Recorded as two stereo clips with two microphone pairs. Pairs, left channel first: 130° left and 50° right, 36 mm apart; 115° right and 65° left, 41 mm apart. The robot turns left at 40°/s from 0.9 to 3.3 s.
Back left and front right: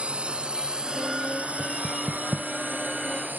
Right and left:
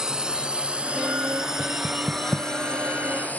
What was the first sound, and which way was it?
A drone, 5° right.